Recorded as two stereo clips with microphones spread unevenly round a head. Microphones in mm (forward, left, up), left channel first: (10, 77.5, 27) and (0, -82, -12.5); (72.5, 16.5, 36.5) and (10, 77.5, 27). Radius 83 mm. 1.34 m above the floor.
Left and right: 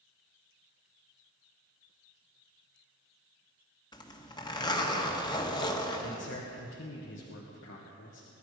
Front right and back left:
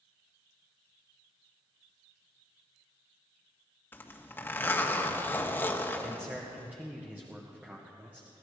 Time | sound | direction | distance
3.9 | a zipper | 20° left | 1.7 m
6.0 | a man speaking | 65° left | 1.8 m